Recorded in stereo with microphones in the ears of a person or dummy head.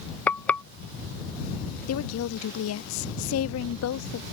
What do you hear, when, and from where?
0.3 s frying: 10° left (ahead or behind)
1.9 s a woman speaking: 70° left (ahead or behind)